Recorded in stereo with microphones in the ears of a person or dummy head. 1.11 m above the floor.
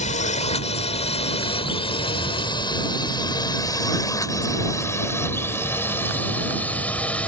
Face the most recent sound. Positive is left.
turn(degrees=5)  # may be behind; listen again after turning